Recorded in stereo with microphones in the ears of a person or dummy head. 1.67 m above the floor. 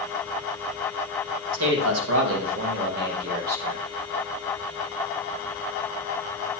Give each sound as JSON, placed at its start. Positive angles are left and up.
{"t": 1.5, "sound": "a man speaking", "side_deg": -75, "distance_m": 1.9}